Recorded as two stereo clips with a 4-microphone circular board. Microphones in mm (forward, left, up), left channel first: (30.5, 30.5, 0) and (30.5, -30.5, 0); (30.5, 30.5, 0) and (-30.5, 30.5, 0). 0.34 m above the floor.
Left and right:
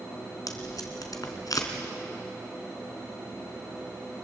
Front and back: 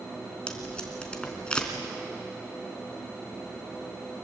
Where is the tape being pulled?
75° left, 3 m.